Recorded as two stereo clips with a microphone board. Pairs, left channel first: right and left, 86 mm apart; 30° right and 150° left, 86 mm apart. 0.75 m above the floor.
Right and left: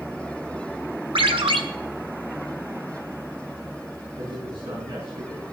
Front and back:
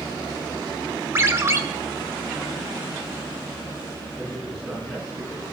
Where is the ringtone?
90° left, 1.3 m.